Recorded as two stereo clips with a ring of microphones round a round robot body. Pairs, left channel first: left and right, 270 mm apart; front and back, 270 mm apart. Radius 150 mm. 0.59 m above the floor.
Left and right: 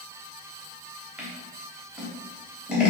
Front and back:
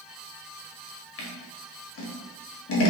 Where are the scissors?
5° right, 0.9 m.